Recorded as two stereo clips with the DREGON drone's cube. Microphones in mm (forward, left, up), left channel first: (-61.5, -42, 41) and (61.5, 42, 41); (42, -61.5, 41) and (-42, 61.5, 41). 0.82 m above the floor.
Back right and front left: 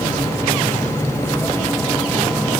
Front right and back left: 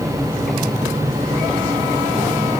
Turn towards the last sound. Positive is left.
No sound to turn to.